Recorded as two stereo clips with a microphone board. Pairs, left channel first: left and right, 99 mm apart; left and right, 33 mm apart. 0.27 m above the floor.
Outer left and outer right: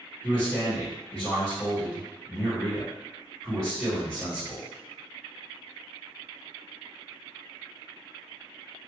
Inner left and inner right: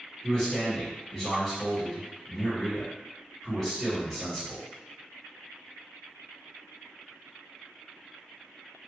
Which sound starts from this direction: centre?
A man speaking, at 0.2 s.